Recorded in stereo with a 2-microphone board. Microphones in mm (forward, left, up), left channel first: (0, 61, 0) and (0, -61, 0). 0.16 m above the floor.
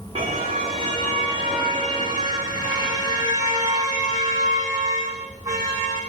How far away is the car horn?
About 7 m.